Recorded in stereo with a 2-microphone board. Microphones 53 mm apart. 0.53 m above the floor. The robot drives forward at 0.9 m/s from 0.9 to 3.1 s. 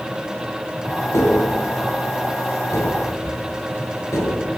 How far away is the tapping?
About 8.5 m.